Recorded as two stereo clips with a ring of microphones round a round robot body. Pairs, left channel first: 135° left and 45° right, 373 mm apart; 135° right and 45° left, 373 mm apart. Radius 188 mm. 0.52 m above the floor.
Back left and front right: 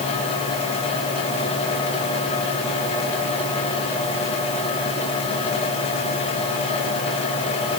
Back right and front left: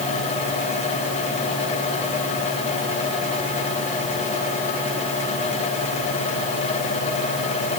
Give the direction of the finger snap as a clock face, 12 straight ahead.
No finger snap in this recording.